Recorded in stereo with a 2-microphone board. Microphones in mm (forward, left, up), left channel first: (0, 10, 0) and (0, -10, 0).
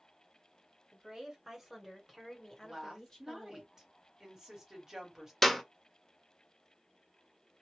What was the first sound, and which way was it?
A woman speaking, 30° right (ahead or behind).